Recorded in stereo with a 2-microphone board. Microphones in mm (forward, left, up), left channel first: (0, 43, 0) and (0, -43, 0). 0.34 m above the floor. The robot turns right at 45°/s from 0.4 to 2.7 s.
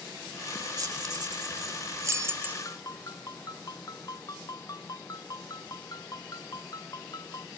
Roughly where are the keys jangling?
Right.